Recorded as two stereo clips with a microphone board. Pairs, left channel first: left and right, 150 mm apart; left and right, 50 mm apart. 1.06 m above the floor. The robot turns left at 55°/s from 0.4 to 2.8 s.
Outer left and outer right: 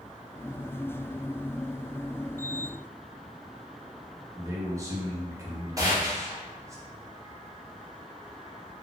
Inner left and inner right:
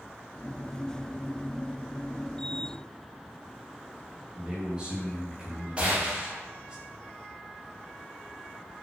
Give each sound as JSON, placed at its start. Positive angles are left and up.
{"t": 4.4, "sound": "a man speaking", "side_deg": -20, "distance_m": 0.8}
{"t": 5.8, "sound": "a gunshot", "side_deg": -25, "distance_m": 0.8}